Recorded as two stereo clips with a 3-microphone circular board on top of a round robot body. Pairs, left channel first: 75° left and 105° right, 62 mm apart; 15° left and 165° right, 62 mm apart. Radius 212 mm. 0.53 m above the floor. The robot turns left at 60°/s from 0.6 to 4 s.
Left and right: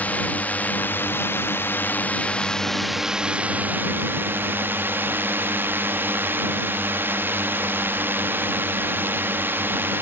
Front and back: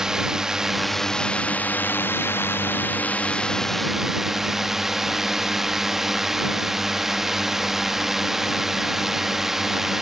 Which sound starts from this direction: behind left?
A drone, at 0.0 s.